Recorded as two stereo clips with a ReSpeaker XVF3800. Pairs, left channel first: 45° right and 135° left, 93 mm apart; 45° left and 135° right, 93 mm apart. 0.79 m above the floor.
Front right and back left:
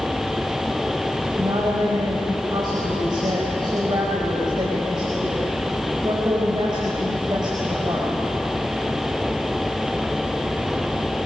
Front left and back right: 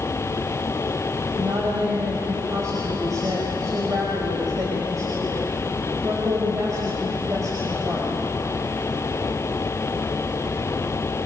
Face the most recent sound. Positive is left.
turn(degrees=170)